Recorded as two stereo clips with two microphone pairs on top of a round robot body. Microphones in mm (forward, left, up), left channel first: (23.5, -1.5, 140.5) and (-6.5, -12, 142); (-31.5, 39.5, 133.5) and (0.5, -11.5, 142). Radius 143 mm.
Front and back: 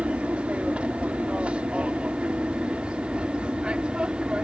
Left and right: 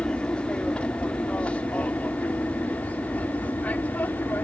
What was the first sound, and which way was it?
An aircraft, 175° left.